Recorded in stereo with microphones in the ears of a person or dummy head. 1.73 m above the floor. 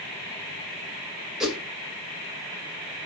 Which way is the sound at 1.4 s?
5° right (ahead or behind).